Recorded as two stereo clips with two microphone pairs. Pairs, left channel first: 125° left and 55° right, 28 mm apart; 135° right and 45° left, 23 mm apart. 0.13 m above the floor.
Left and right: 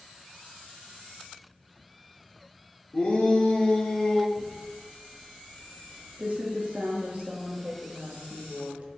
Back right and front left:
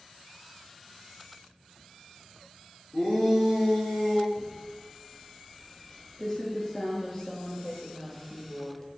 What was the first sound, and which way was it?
A shout, 155° left.